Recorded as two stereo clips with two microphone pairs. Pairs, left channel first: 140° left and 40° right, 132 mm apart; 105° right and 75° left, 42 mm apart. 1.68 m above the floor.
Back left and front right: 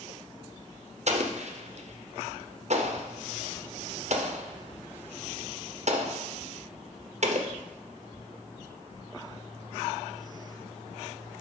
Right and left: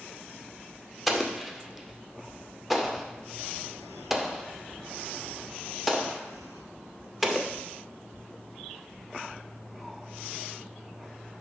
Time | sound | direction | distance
1.1 | an explosion | 10° right | 0.7 m